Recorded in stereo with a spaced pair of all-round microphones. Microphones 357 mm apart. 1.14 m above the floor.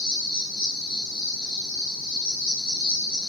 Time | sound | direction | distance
0.0 | an insect | 75° left (ahead or behind) | 0.8 m